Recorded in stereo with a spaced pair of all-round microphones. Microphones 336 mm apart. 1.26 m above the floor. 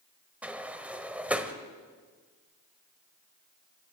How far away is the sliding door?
About 1.2 m.